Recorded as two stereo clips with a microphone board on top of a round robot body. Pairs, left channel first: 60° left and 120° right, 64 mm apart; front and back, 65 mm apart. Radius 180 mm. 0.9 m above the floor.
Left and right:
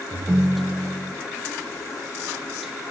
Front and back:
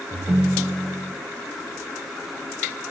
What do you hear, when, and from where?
0.1 s a ringtone: 150° right, 0.6 m